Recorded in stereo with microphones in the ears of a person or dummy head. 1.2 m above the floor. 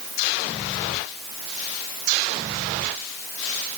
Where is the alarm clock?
No alarm clock in this recording.